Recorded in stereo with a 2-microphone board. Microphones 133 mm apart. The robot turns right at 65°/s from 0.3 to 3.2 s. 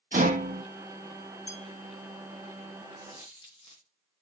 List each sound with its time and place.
0.1 s a rattle: 75° right (ahead or behind), 1.1 m
1.5 s a bell: 55° left (ahead or behind), 1.9 m; by 1.7 s 50° left (ahead or behind), 1.9 m
3.0 s a dropped coin: 50° left (ahead or behind), 3 m; by 3.9 s 35° left (ahead or behind), 3 m